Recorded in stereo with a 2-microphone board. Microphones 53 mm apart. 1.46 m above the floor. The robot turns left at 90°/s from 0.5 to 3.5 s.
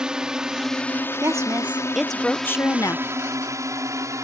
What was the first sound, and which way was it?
A drone, 15° right (ahead or behind).